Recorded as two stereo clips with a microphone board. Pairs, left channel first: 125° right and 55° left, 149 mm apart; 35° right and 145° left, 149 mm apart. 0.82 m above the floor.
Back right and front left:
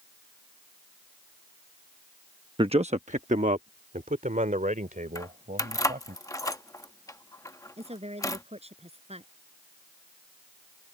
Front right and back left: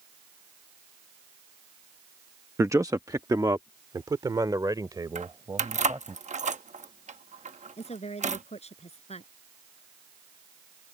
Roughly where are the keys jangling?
Behind.